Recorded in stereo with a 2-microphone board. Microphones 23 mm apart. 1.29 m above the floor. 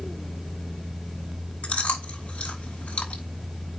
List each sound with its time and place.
1.6 s chewing: 80° left, 5 m